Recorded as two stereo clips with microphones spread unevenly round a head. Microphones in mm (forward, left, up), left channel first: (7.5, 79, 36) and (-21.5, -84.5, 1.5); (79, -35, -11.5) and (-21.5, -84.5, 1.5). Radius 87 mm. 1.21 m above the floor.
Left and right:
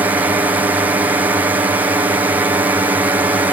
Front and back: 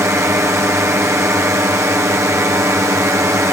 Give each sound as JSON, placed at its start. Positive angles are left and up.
{"t": 0.0, "sound": "a drone", "azimuth_deg": -120}